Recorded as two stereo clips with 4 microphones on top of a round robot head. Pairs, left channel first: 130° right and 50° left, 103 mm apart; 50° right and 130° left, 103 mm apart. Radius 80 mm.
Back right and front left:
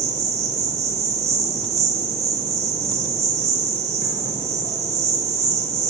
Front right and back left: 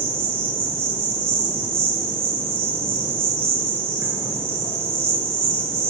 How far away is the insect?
About 6.5 m.